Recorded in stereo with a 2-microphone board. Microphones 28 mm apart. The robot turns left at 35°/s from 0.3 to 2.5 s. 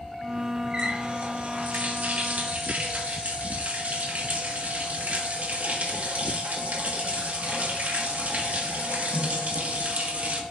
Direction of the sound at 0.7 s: 40° right.